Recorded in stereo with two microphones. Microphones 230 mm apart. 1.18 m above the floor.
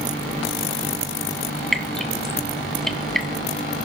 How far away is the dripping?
About 1.5 m.